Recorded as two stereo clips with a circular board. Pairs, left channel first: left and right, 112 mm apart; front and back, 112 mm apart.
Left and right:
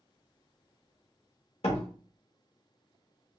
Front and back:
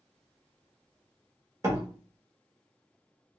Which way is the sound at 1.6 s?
115° left.